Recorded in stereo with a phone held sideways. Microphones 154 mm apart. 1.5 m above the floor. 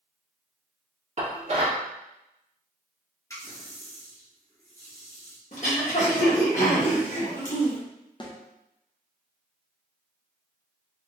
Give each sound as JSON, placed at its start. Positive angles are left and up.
{"t": 1.2, "sound": "dishes clattering", "side_deg": -45, "distance_m": 1.4}
{"t": 3.3, "sound": "a running tap", "side_deg": 20, "distance_m": 1.2}
{"t": 5.5, "sound": "throat clearing", "side_deg": 55, "distance_m": 1.2}
{"t": 8.2, "sound": "a snare drum", "side_deg": 30, "distance_m": 0.6}